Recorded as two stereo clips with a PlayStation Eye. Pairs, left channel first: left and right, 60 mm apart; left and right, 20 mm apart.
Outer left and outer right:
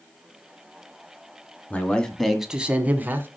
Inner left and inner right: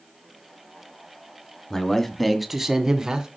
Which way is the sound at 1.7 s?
20° left (ahead or behind).